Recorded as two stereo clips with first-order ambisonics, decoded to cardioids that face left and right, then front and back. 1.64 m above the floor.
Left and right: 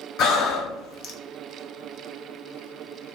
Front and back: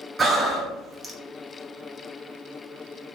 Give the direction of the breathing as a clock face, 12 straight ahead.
8 o'clock.